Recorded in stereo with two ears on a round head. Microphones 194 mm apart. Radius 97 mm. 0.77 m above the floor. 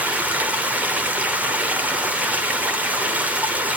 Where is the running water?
5° right (ahead or behind), 1.1 m.